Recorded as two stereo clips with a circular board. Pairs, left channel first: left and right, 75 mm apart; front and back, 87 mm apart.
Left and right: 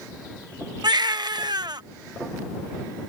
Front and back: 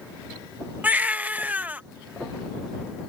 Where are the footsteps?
I don't hear footsteps.